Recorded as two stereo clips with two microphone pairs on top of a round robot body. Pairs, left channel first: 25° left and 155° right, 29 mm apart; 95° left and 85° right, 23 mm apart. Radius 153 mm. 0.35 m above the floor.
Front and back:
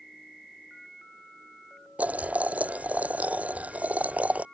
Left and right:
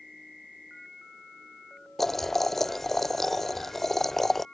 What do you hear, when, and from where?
2.0 s boiling: 175° left